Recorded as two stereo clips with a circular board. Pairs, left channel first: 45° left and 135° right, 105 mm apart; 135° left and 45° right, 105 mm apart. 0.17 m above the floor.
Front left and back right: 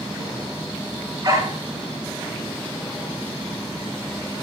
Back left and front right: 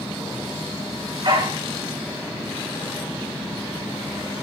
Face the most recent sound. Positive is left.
turn(degrees=-85)